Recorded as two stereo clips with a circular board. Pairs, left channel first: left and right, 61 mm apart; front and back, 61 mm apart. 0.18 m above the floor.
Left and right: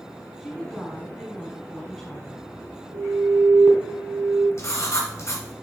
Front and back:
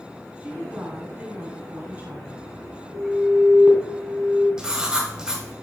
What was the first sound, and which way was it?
A woman speaking, 165° left.